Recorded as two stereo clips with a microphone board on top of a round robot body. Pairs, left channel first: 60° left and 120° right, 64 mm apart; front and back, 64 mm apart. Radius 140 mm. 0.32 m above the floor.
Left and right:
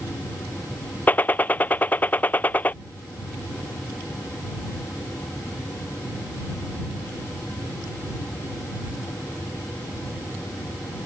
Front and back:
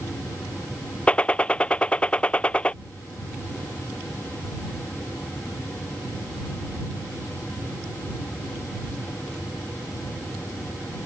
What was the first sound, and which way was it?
A gunshot, 45° left.